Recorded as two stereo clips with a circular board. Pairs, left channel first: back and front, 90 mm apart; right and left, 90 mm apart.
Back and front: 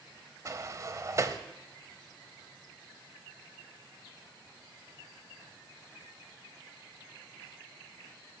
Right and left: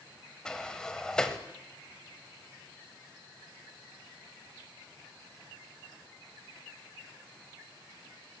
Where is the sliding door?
15° right, 0.9 m.